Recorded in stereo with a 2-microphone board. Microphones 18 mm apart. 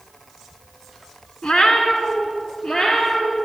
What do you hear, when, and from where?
1.4 s a cat meowing: 60° left (ahead or behind), 1.2 m; by 3.4 s 50° left (ahead or behind), 3.5 m